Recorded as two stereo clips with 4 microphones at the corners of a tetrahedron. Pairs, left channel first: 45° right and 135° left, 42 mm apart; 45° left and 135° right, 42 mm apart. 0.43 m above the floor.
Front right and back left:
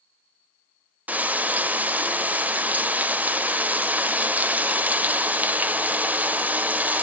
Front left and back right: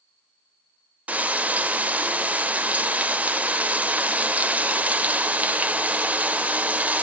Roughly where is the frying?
Behind.